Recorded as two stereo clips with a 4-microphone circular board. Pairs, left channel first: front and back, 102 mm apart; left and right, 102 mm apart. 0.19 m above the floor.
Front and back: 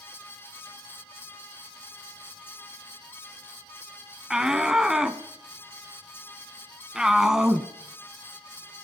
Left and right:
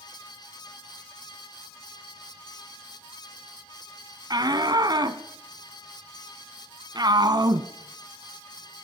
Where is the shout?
100° right, 1.4 m.